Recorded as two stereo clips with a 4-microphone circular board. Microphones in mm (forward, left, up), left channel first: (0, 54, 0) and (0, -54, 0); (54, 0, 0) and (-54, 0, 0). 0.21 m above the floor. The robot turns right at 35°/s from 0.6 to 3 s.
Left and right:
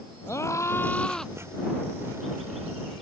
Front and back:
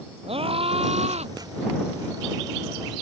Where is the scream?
155° left; by 1.3 s straight behind.